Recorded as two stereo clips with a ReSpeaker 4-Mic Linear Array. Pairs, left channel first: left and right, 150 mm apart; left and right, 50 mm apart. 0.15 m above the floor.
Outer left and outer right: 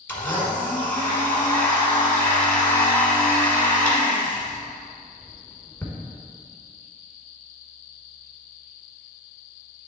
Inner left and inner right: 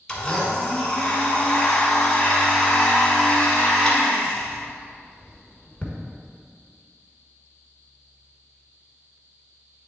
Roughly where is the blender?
Centre.